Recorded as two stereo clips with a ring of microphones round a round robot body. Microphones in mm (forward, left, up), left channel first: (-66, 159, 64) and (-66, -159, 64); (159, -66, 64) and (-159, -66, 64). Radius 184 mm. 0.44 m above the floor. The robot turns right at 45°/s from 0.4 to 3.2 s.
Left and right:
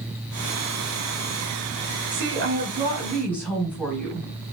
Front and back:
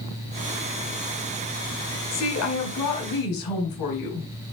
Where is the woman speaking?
45° right, 4 m; by 4.3 s 5° left, 4 m.